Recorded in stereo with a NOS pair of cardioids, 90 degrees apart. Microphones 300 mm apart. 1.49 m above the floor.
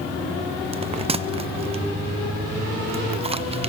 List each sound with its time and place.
0.7 s a bell: 20° right, 1.0 m